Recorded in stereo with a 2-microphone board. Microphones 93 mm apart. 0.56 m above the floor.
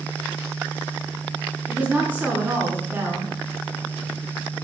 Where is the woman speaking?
20° right (ahead or behind), 5 m.